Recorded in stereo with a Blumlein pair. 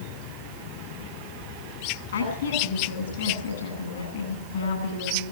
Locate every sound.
2.1 s a woman speaking: 60° left, 10 m